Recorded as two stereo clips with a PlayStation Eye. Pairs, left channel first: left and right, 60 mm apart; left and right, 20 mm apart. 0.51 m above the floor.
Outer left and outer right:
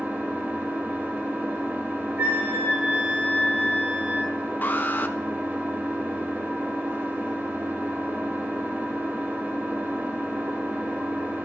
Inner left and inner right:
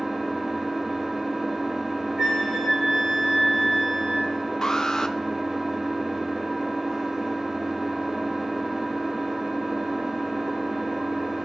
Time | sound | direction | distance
0.0 | an engine running | 30° right (ahead or behind) | 1.0 m
2.2 | a flute | 30° right (ahead or behind) | 2.5 m
4.6 | an alarm | 30° left (ahead or behind) | 0.7 m